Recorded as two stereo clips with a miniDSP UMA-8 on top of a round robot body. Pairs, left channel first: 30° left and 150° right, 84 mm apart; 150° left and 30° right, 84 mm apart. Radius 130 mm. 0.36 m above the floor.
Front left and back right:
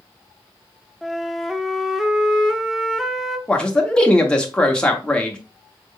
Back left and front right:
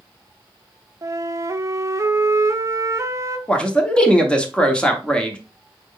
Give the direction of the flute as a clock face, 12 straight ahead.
2 o'clock.